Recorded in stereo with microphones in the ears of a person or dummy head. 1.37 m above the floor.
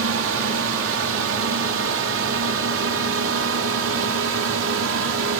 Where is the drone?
70° right (ahead or behind).